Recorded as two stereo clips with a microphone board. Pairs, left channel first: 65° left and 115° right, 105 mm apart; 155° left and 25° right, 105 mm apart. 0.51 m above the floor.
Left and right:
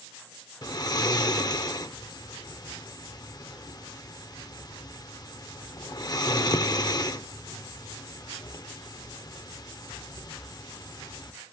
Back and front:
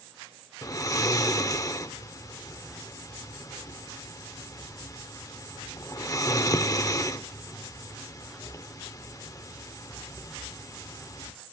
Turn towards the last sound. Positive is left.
turn(degrees=110)